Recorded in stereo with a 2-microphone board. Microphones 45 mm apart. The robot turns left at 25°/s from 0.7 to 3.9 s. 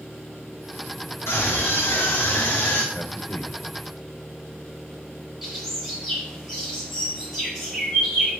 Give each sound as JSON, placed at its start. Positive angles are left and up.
{"t": 1.3, "sound": "a scream", "azimuth_deg": 90, "distance_m": 3.5}
{"t": 2.9, "sound": "a man speaking", "side_deg": 40, "distance_m": 1.7}
{"t": 5.4, "sound": "a bird", "side_deg": -10, "distance_m": 6.5}